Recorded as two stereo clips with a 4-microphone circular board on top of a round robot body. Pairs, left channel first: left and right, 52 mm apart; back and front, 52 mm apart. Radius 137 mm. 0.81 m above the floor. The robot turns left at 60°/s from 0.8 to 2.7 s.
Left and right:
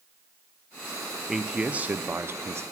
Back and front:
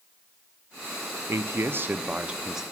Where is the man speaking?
5° right, 0.5 m; by 2.6 s 85° right, 0.5 m.